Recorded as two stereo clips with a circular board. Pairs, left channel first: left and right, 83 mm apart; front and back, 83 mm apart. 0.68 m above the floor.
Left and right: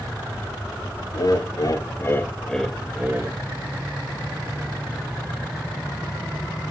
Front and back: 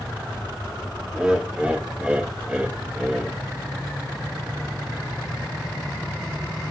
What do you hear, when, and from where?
1.1 s laughter: 100° left, 1.2 m; by 3.4 s 105° right, 0.8 m